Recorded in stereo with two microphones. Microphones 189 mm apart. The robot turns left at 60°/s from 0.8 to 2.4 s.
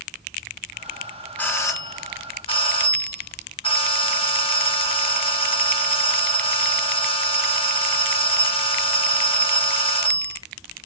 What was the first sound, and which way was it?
A doorbell, 10° left (ahead or behind).